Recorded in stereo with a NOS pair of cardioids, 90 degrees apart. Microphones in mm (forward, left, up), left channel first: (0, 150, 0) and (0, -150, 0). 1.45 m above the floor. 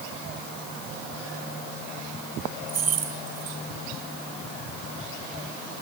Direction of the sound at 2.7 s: 55° right.